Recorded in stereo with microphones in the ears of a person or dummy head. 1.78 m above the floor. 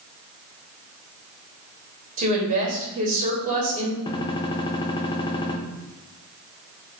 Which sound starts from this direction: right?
A woman speaking, at 2.2 s.